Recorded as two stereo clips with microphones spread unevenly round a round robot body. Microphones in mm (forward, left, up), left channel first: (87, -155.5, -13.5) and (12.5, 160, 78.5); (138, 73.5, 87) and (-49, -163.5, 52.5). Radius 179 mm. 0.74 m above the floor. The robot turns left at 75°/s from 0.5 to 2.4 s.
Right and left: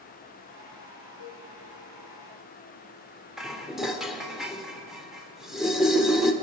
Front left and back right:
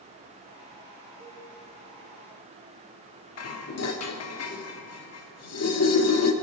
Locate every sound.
1.2 s a cowbell: 175° right, 4.5 m; by 1.4 s 165° left, 4.5 m
3.4 s dishes clattering: 10° left, 1.3 m